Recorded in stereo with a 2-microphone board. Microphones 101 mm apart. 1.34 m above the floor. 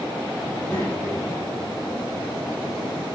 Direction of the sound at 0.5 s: 25° left (ahead or behind).